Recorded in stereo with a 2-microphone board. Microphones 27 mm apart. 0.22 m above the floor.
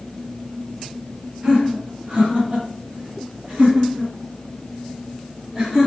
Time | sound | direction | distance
1.4 | laughter | 40° right (ahead or behind) | 1.7 m